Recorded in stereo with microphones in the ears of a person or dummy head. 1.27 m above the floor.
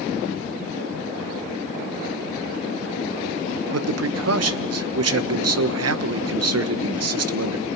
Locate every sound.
3.7 s a man speaking: 75° right (ahead or behind), 1.2 m